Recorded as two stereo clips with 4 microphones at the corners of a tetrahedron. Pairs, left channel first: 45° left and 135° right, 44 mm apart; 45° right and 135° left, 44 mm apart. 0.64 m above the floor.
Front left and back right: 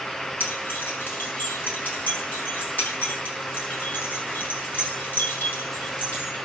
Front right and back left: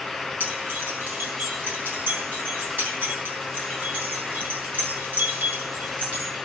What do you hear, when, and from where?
0.4 s keys jangling: 90° left, 6.5 m